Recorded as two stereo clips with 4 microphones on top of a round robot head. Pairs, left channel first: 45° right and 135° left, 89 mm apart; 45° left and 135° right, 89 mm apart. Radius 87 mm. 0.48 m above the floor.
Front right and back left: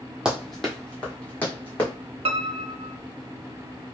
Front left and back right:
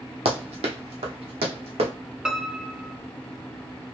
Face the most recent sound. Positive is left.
turn(degrees=145)